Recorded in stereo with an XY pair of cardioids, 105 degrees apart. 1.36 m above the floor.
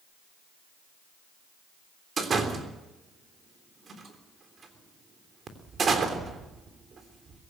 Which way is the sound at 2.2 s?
45° right.